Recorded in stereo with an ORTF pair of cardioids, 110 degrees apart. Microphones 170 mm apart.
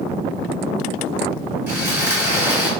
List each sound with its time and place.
1.7 s sawing: 15° right, 2 m